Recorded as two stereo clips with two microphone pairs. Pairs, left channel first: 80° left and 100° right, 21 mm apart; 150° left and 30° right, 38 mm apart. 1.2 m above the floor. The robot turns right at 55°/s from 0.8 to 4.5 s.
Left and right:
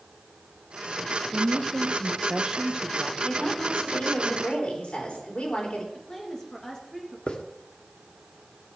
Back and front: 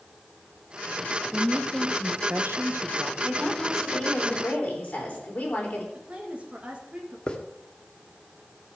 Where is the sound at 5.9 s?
25° left, 1.9 m.